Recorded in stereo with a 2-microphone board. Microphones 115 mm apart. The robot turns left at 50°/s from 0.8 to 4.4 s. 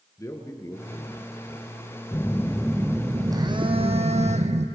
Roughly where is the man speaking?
Left.